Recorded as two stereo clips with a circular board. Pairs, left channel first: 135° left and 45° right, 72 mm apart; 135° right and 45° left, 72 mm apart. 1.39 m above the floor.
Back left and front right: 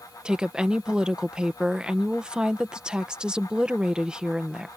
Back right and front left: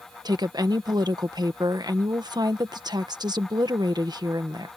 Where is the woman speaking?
35° left.